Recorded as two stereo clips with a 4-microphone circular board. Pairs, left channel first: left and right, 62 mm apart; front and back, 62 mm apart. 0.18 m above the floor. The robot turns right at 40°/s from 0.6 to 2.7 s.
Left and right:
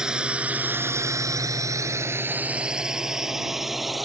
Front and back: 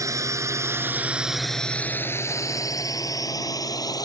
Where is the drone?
170° right; by 4.1 s straight ahead.